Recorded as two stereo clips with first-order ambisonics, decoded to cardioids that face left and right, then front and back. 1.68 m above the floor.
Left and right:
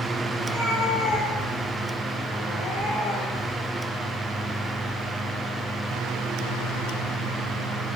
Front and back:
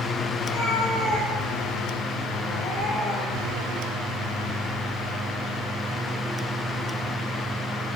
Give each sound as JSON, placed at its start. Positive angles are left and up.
{"t": 0.4, "sound": "a cat meowing", "azimuth_deg": 35, "distance_m": 4.5}